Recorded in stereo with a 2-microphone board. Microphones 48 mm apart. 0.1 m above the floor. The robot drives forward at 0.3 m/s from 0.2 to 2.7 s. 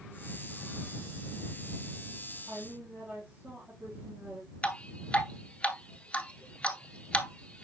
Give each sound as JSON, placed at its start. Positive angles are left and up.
{"t": 2.5, "sound": "a woman speaking", "side_deg": -30, "distance_m": 4.5}
{"t": 4.6, "sound": "dripping", "side_deg": 25, "distance_m": 1.1}